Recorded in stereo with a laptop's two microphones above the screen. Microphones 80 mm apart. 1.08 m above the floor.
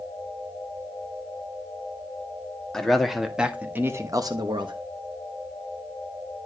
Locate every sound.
2.7 s a man speaking: 5° left (ahead or behind), 2.0 m; by 4.8 s 75° right (ahead or behind), 1.2 m